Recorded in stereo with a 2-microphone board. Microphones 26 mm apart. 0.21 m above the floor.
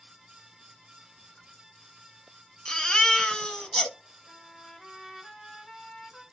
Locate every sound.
2.6 s a baby crying: 25° left (ahead or behind), 0.8 m
4.3 s a trumpet: 20° left (ahead or behind), 1.0 m